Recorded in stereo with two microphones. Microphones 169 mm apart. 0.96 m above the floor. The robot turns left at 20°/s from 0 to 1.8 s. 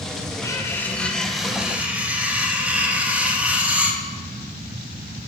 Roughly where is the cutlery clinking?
Centre.